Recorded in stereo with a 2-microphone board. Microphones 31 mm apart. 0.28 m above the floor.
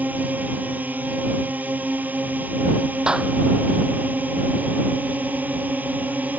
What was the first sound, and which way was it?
A drone, 75° right (ahead or behind).